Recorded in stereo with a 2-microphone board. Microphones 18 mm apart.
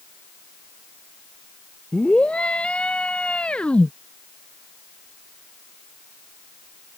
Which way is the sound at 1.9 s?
85° left.